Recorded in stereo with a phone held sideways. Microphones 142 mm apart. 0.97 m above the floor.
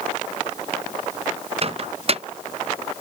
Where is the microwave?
45° right (ahead or behind).